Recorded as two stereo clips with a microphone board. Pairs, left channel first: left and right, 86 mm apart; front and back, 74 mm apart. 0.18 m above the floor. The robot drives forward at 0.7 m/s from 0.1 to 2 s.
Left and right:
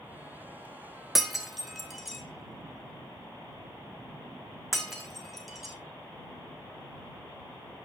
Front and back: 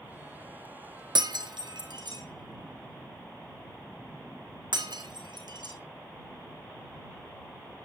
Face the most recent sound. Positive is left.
turn(degrees=180)